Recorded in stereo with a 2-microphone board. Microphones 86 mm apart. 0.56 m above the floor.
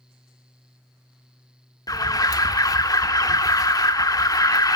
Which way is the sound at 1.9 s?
45° left (ahead or behind).